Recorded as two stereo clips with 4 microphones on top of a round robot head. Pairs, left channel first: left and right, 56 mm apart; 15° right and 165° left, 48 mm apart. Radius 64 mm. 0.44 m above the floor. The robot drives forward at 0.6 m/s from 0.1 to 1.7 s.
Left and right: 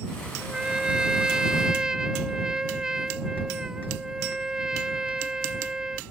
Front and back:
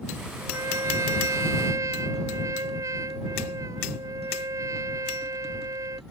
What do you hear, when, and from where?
0.4 s a trumpet: 165° right; by 6.0 s 170° right